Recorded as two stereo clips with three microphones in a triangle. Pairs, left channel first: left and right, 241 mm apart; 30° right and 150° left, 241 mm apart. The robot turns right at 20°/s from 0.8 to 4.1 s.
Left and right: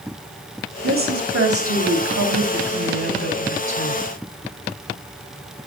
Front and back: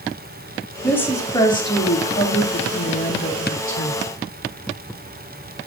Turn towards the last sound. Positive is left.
turn(degrees=-50)